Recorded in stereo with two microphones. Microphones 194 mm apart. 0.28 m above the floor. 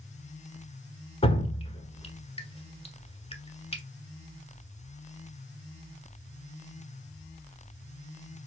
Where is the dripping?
30° left (ahead or behind), 1.1 m.